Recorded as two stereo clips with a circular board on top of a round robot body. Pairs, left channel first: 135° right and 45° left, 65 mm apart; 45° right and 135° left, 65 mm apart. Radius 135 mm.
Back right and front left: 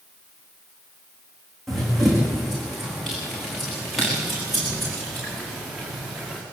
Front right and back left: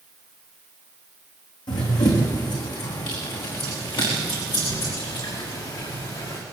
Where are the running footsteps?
45° right, 4 m; by 6.4 s 40° right, 6.5 m.